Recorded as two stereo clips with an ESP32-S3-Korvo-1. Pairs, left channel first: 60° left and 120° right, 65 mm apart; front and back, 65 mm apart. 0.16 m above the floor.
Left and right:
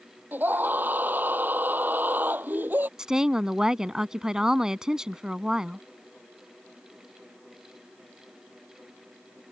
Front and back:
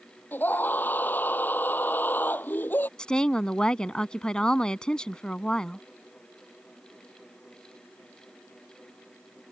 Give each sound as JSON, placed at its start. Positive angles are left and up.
{"t": 0.3, "sound": "a scream", "azimuth_deg": -60}
{"t": 3.0, "sound": "a woman speaking", "azimuth_deg": -55}